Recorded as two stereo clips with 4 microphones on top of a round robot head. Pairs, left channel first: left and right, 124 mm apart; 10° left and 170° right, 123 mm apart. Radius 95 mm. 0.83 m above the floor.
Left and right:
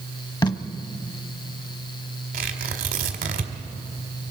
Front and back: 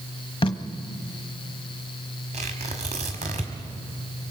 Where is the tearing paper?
120° right, 1.8 m.